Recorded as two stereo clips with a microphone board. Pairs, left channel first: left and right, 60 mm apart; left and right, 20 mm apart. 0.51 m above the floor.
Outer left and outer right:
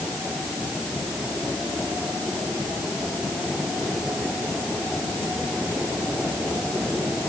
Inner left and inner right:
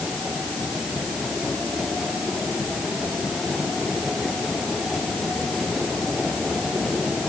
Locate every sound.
Only background noise.